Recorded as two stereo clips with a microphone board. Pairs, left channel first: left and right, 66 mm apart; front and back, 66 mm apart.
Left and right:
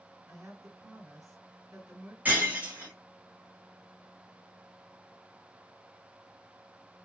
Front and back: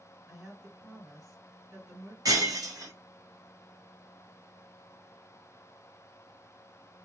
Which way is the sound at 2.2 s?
155° right.